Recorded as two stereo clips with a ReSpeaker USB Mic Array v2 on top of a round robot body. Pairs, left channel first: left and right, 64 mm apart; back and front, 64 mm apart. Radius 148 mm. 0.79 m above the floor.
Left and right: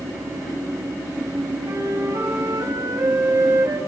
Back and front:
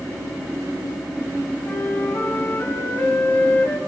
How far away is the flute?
About 4.5 m.